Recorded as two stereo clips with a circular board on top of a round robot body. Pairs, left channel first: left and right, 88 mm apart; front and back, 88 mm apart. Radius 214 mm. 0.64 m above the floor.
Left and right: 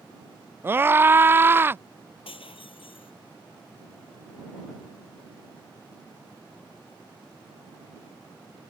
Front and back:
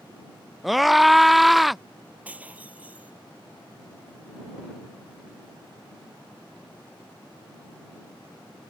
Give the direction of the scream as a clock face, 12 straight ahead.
3 o'clock.